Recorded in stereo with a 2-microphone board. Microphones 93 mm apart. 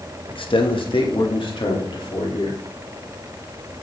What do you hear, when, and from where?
0.3 s a man speaking: 65° left (ahead or behind), 1.0 m; by 2.6 s 60° left (ahead or behind), 2.5 m